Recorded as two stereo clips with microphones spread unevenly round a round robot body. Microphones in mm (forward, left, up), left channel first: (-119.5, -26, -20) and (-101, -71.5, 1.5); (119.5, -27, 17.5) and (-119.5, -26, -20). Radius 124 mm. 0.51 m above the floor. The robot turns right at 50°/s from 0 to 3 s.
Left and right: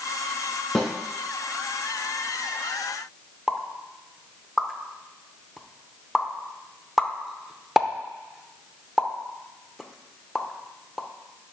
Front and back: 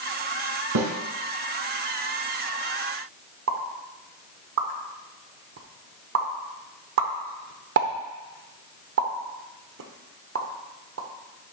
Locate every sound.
0.8 s a snare drum: 165° right, 1.8 m; by 0.9 s 155° right, 1.8 m
3.5 s a pop: 170° right, 0.8 m